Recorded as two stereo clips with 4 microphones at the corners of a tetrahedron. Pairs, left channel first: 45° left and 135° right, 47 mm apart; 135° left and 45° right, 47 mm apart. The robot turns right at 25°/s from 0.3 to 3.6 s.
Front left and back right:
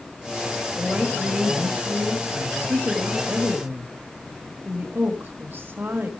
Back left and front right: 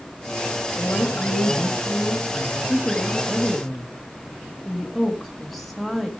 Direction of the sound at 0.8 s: 165° left.